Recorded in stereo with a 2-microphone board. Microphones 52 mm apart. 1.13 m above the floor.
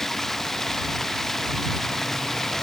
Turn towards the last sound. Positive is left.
turn(degrees=10)  # may be behind; listen again after turning